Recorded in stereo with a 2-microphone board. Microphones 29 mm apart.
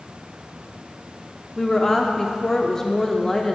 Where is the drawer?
No drawer in this recording.